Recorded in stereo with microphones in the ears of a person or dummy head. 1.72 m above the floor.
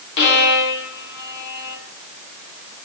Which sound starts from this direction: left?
A violin, at 0.2 s.